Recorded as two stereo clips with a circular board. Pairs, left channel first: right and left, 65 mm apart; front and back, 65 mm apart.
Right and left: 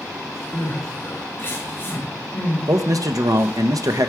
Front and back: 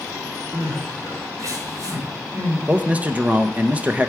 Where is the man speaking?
115° left, 0.7 m.